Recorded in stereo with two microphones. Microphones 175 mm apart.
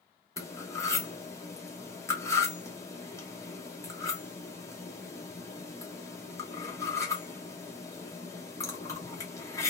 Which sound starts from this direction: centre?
Cutlery clinking, at 0.4 s.